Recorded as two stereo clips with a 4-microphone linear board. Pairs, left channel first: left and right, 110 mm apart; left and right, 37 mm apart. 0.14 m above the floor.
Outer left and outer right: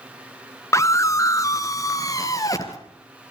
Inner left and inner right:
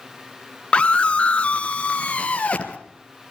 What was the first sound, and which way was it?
A scream, 30° left (ahead or behind).